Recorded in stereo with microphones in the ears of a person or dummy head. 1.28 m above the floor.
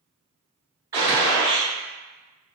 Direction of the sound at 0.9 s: 20° right (ahead or behind).